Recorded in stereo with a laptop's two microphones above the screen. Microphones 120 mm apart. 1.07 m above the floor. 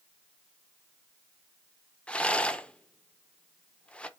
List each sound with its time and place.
2.1 s a rattle: 10° left (ahead or behind), 0.6 m